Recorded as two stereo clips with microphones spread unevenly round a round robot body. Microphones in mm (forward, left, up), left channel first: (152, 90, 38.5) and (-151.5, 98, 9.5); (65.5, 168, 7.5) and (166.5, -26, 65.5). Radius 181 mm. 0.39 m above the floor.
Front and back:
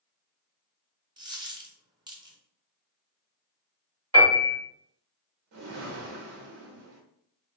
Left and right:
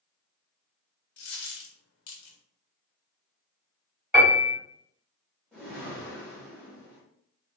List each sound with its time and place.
1.2 s a dropped coin: 100° left, 0.8 m
4.1 s a piano: 150° right, 1.5 m
5.5 s a whoosh: 165° right, 0.7 m